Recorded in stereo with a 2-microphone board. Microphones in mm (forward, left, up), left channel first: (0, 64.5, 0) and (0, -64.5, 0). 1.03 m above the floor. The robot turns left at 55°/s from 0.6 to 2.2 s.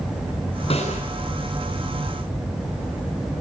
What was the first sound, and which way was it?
A snare drum, 50° left (ahead or behind).